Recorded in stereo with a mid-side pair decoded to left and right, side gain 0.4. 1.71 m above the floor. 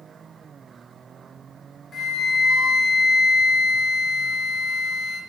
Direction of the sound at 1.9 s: 55° left.